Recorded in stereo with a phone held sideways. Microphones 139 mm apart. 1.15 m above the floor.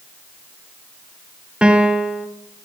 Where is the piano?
5° right (ahead or behind), 1.2 m.